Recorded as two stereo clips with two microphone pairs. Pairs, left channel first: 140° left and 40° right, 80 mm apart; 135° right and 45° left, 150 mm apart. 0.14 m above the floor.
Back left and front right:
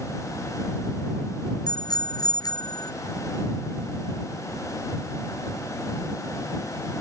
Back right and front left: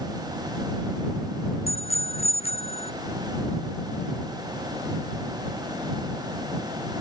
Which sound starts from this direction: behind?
A bicycle bell, at 1.7 s.